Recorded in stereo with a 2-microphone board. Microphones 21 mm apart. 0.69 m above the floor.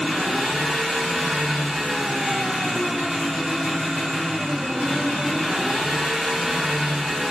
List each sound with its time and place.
0.0 s an engine running: 10° right (ahead or behind), 1.3 m